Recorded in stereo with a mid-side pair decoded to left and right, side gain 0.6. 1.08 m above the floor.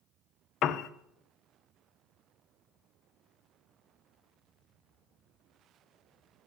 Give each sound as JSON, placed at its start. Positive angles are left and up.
{"t": 0.6, "sound": "a piano", "azimuth_deg": 60, "distance_m": 0.5}